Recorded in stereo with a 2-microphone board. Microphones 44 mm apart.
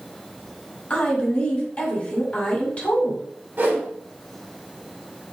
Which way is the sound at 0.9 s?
35° left (ahead or behind).